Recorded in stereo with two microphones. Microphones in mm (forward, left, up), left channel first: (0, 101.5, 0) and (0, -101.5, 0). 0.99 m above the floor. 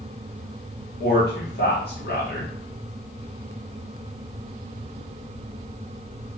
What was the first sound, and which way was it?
A man speaking, 50° left (ahead or behind).